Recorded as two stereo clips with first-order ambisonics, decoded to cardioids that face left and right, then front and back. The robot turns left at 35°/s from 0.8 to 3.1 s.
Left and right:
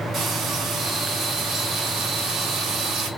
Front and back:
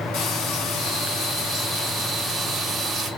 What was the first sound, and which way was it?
Frying, 30° right.